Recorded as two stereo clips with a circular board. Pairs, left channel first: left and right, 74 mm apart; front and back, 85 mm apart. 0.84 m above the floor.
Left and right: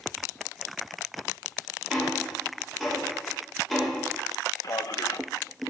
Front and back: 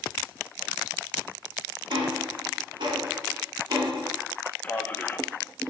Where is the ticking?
175° left, 2 m.